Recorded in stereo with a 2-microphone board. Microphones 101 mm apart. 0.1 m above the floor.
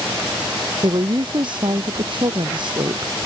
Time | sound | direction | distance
0.8 | a woman speaking | 55° right (ahead or behind) | ?